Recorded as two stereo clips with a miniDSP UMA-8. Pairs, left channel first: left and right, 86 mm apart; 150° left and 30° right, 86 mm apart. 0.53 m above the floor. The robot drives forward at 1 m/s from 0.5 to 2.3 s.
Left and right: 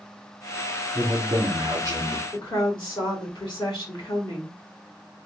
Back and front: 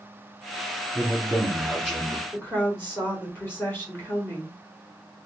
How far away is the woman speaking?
About 1.9 m.